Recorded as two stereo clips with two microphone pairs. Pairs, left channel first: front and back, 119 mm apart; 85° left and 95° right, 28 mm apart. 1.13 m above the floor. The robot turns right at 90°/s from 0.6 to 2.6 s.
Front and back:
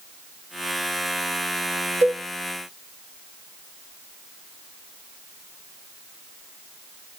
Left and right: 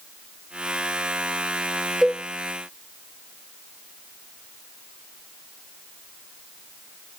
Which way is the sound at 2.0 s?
165° right.